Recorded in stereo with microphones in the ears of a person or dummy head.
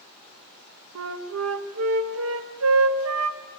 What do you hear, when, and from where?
0.9 s a flute: 80° right, 2 m